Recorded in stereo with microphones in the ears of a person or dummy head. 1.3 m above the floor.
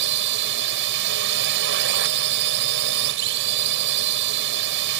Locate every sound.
0.0 s a drone: 65° right (ahead or behind)